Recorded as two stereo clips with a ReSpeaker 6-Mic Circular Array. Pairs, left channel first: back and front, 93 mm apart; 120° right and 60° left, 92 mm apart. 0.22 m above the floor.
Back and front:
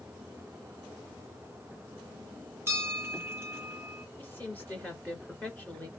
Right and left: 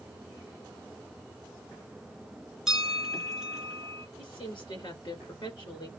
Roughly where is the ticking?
No ticking in this recording.